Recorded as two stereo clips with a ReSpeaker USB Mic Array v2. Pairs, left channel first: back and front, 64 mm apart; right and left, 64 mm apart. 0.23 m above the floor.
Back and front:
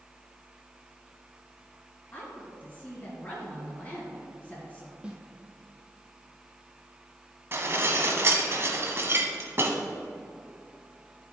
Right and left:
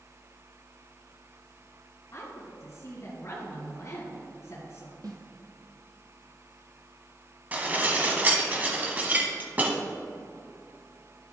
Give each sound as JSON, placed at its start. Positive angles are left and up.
{"t": 2.1, "sound": "a woman speaking", "azimuth_deg": -125, "distance_m": 1.9}
{"t": 5.0, "sound": "a snare drum", "azimuth_deg": 75, "distance_m": 1.2}
{"t": 7.5, "sound": "dishes clattering", "azimuth_deg": 35, "distance_m": 1.0}